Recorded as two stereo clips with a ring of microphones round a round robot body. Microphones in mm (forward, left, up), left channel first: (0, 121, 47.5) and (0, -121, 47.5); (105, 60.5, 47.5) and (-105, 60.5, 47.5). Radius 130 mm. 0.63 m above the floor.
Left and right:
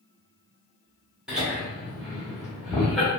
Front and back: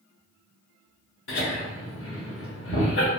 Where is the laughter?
5° right, 1.8 m.